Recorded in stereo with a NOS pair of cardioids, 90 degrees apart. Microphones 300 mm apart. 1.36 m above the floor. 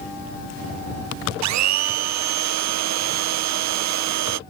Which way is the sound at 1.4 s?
65° right.